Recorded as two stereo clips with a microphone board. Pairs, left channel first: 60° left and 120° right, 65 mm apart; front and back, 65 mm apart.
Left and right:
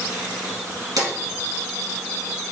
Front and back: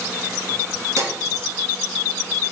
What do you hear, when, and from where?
1.0 s a drawer: 135° right, 2.0 m